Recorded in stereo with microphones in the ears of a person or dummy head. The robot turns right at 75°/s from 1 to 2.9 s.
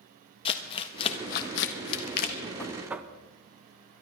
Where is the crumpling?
30° left (ahead or behind), 1.3 m; by 2.4 s 45° left (ahead or behind), 1.3 m.